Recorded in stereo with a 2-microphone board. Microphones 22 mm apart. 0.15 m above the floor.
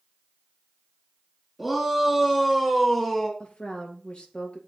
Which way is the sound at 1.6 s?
10° right (ahead or behind).